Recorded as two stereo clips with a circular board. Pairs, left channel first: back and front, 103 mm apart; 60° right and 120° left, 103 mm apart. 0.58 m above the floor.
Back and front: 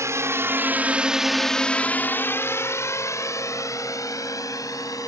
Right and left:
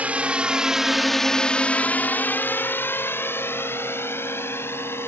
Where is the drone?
50° left; by 5.1 s 125° right.